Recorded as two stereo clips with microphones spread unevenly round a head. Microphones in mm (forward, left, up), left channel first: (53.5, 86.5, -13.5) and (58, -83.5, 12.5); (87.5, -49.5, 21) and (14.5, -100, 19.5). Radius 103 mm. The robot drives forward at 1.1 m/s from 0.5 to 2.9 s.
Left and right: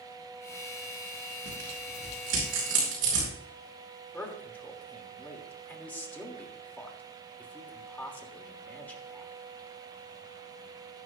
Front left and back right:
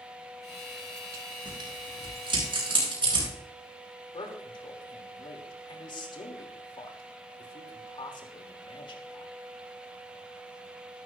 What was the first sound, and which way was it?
Tearing paper, 115° right.